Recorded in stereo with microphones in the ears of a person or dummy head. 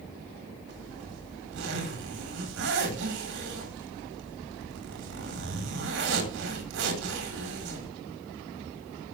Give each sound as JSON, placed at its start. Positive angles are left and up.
{"t": 0.7, "sound": "a zipper", "side_deg": -70, "distance_m": 4.5}